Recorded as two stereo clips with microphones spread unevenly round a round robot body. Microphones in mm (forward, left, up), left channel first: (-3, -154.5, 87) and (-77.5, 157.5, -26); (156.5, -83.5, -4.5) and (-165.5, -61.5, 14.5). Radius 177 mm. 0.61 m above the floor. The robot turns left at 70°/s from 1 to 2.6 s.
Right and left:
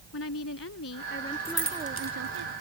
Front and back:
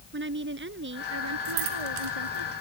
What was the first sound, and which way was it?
A woman speaking, 130° right.